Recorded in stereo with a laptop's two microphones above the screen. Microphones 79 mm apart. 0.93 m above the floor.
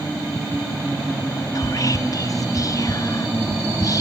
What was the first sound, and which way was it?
Whispering, 45° left (ahead or behind).